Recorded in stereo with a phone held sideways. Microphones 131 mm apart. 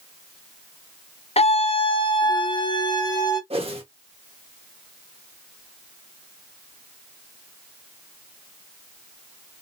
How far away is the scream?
About 0.6 m.